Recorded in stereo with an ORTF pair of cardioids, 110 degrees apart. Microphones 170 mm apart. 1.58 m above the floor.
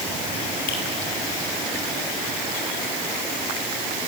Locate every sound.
0.7 s a finger snap: 65° left, 7 m